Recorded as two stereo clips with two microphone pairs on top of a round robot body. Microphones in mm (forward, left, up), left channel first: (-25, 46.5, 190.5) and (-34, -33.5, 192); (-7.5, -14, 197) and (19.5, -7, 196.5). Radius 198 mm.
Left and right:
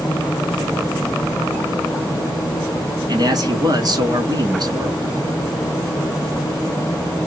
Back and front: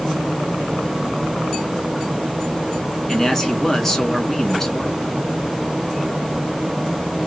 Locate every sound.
3.1 s a man speaking: 85° right, 1.7 m